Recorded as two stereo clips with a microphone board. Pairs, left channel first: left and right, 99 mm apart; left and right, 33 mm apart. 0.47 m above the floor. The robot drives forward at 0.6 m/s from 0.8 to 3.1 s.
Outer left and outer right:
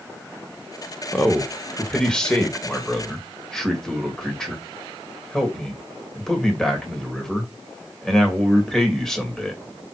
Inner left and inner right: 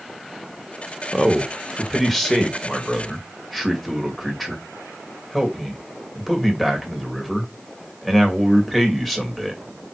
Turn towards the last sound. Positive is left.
turn(degrees=5)  # may be behind; listen again after turning